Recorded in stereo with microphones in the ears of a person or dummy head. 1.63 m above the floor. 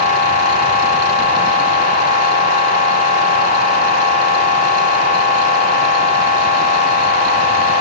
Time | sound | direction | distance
0.0 | a machine running | 40° left (ahead or behind) | 3.5 m